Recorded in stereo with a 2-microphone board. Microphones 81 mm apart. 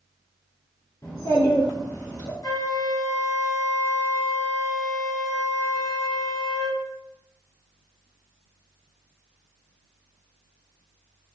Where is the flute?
55° left (ahead or behind), 0.7 m.